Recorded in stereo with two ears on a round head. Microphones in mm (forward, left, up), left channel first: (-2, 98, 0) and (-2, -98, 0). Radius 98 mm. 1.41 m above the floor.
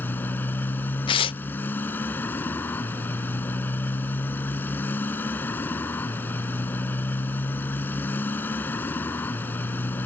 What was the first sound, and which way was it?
A motorcycle, 10° left (ahead or behind).